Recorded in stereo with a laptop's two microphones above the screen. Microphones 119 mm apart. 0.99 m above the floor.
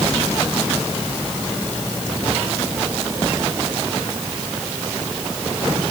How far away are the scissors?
I don't hear scissors.